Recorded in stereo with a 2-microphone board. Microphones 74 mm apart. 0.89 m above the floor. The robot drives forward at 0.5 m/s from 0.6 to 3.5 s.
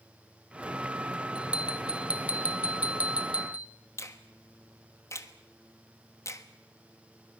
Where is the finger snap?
40° left (ahead or behind), 1.3 m.